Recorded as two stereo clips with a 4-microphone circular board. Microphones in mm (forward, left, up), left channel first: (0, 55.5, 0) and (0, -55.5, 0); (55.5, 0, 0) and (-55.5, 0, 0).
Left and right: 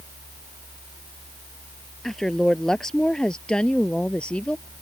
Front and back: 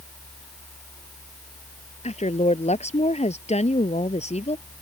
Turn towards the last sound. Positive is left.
turn(degrees=10)